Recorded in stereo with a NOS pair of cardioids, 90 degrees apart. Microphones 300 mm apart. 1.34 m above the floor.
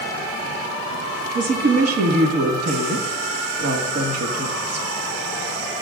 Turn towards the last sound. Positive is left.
turn(degrees=-55)